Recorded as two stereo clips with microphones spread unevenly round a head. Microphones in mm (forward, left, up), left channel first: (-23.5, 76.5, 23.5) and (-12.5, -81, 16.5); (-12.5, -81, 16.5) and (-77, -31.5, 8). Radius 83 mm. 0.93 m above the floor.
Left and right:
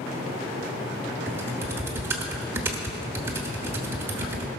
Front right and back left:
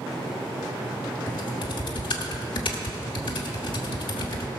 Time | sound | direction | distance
1.3 | typing on a keyboard | 10° right | 1.1 m